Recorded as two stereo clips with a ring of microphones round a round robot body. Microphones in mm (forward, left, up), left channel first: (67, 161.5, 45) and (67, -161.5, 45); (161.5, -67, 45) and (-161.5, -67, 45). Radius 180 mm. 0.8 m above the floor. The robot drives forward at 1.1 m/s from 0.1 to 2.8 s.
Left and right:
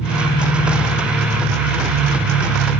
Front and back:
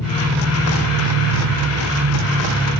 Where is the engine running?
85° left, 2 m; by 2.8 s 145° left, 3.5 m.